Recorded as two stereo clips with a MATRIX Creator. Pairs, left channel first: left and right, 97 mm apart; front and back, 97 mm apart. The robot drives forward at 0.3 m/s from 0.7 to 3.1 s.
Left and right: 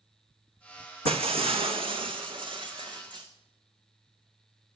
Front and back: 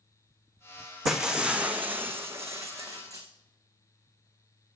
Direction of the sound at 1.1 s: 90° right.